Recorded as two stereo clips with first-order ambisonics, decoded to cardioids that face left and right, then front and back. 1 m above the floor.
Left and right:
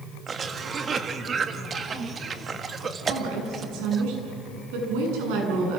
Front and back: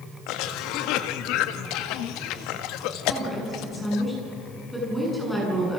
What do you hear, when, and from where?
0.3 s a cough: 25° right, 1.6 m
3.1 s a woman speaking: 85° right, 8.5 m